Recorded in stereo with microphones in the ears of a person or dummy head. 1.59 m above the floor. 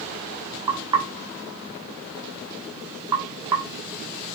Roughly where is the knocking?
Centre.